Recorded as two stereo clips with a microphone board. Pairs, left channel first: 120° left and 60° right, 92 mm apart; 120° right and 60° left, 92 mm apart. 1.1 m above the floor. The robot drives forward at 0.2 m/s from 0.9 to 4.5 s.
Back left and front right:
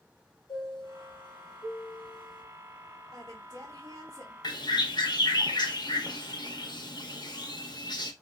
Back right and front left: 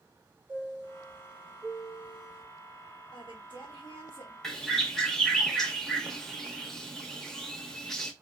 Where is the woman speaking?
100° right, 1.1 m; by 4.3 s 110° right, 1.2 m.